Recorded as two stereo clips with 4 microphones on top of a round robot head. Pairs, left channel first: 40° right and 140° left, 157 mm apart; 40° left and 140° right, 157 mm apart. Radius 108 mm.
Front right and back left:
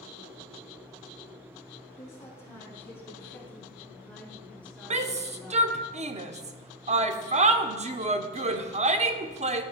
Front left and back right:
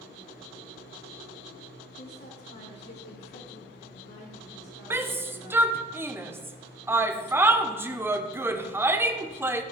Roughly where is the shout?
Behind left.